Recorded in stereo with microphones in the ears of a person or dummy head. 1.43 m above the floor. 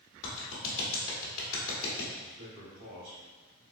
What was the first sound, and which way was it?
A clap, 80° left.